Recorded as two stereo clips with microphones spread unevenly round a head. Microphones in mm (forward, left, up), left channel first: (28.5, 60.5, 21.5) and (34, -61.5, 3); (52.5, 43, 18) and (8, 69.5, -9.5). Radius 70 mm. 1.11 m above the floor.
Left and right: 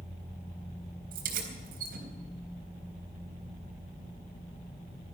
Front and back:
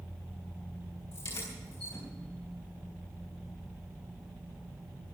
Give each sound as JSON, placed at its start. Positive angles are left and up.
{"t": 1.1, "sound": "keys jangling", "azimuth_deg": -85, "distance_m": 4.0}